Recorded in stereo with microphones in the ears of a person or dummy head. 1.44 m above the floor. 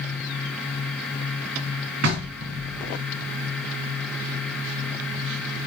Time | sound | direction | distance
2.0 | knocking | 70° right (ahead or behind) | 4.5 m